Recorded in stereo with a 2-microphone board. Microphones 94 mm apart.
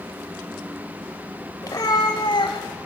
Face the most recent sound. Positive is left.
turn(degrees=70)  # may be behind; listen again after turning